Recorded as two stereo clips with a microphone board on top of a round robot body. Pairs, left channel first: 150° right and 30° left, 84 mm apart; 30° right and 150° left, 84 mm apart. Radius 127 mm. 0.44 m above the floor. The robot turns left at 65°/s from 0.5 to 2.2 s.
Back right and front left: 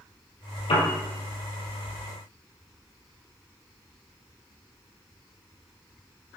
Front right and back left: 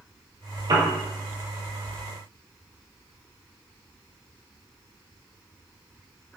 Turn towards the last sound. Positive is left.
turn(degrees=95)